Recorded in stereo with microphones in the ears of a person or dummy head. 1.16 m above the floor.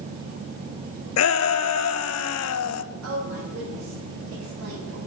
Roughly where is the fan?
Right.